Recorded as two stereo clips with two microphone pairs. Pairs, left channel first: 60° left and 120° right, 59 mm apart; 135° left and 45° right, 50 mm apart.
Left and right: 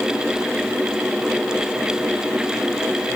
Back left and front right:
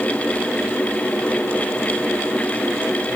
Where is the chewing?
No chewing in this recording.